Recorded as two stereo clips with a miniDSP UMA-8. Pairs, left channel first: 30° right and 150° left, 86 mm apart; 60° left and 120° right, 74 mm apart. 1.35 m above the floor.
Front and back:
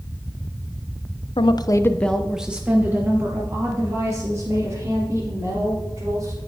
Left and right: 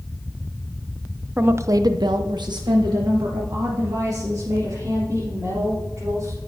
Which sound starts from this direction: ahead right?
A woman speaking, at 1.4 s.